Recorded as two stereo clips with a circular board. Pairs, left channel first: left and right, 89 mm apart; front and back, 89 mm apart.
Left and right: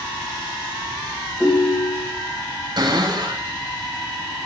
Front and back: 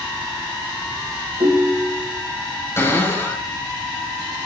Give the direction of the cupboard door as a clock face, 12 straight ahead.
2 o'clock.